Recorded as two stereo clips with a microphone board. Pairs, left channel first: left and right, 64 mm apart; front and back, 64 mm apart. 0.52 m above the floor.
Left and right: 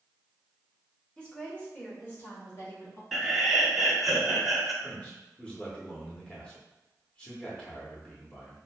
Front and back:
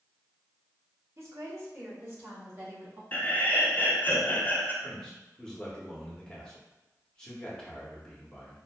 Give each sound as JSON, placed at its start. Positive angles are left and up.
{"t": 1.2, "sound": "a woman speaking", "azimuth_deg": 160, "distance_m": 1.2}
{"t": 3.1, "sound": "laughter", "azimuth_deg": -5, "distance_m": 0.7}
{"t": 4.8, "sound": "a man speaking", "azimuth_deg": 50, "distance_m": 1.0}